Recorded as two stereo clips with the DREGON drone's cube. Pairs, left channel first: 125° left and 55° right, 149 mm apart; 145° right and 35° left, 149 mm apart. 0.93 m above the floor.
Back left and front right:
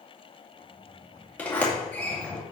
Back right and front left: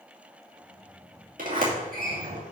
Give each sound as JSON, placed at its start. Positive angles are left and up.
{"t": 1.4, "sound": "a sliding door", "azimuth_deg": 45, "distance_m": 2.5}